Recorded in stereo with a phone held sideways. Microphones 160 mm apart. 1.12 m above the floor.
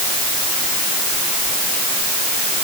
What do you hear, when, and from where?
Only background noise.